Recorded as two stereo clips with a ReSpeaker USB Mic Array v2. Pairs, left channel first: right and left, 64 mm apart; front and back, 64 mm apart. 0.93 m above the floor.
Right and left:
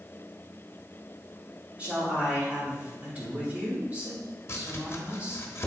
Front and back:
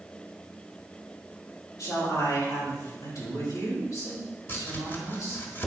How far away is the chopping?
About 1.2 m.